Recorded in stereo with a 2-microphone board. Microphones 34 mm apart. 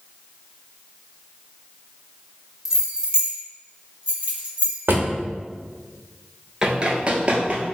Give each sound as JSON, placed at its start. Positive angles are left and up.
{"t": 2.6, "sound": "keys jangling", "side_deg": -10, "distance_m": 0.6}
{"t": 4.9, "sound": "a drawer", "side_deg": -80, "distance_m": 0.7}
{"t": 6.6, "sound": "running footsteps", "side_deg": -20, "distance_m": 0.6}